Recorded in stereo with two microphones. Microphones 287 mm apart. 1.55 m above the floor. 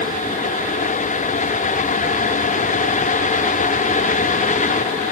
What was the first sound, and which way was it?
Only background noise.